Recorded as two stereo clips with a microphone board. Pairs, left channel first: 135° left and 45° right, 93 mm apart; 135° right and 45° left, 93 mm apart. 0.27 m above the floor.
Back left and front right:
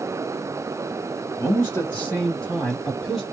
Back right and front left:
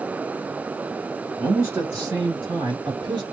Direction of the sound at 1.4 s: 100° left.